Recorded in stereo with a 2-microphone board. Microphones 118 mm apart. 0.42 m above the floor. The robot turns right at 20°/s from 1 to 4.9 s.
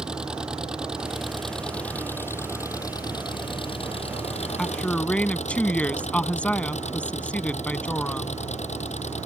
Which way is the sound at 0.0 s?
5° right.